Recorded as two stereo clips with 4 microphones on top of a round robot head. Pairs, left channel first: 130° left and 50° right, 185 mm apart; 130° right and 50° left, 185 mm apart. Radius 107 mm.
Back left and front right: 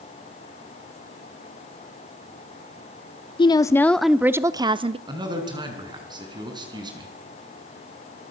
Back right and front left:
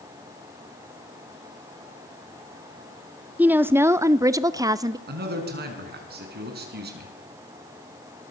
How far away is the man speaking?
About 5 m.